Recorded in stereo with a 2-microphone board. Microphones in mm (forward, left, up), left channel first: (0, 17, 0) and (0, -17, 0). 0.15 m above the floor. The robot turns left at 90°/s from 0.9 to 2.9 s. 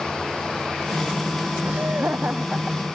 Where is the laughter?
70° right; by 2.8 s 175° right.